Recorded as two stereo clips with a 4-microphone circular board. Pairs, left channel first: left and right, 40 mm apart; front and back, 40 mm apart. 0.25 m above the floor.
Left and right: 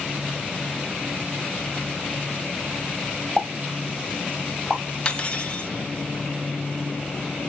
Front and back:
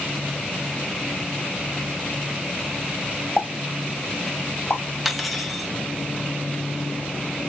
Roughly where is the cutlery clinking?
Left.